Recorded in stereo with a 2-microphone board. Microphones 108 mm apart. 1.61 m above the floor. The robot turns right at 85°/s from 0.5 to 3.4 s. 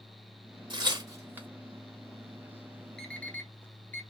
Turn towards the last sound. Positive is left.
turn(degrees=20)  # may be behind; listen again after turning